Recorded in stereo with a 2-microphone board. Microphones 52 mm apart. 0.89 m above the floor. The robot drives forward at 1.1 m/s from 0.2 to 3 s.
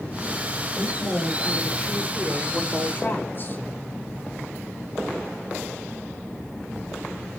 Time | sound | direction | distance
0.8 | a woman speaking | 20° left (ahead or behind) | 5 m